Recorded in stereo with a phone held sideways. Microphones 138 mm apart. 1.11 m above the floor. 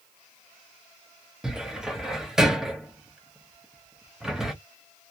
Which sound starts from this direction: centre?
A cupboard door, at 1.4 s.